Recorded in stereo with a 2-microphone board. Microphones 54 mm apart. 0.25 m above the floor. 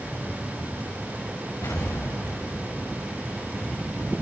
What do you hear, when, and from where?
1.6 s an explosion: 90° left, 5.5 m